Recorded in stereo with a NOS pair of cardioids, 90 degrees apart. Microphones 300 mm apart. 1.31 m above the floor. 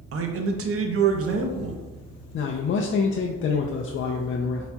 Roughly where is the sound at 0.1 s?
Ahead right.